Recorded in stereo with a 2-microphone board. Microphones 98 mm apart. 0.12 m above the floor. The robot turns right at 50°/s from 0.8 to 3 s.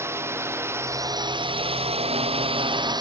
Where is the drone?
155° right; by 3.0 s 45° right.